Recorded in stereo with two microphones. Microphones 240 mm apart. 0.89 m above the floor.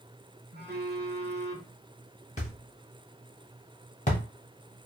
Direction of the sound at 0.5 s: 45° right (ahead or behind).